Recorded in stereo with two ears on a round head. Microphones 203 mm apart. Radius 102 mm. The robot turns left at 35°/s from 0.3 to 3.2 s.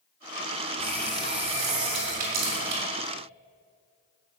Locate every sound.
0.8 s a running tap: 15° left, 3.5 m; by 2.8 s 60° right, 3.5 m